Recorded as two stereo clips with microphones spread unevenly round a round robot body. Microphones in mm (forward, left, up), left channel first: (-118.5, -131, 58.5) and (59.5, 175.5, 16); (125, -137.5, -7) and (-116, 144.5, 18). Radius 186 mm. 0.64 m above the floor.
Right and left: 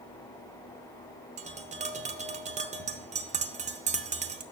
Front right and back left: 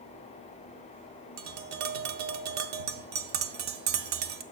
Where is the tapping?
130° left, 0.7 m.